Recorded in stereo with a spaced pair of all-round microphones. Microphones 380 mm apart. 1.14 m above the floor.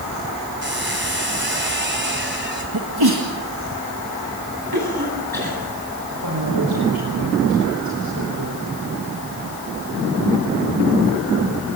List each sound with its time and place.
0.6 s a squeak: 30° right (ahead or behind), 3 m
2.7 s a sneeze: 75° right (ahead or behind), 2.0 m
4.7 s a cough: 65° right (ahead or behind), 9 m
6.1 s a man speaking: 65° right (ahead or behind), 4.5 m